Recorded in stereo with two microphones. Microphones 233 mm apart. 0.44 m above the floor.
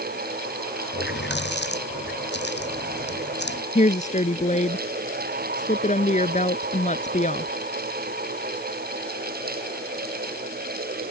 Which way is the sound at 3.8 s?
30° left (ahead or behind).